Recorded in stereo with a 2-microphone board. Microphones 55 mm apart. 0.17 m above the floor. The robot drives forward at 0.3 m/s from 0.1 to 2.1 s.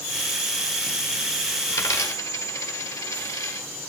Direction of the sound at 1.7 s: 75° left (ahead or behind).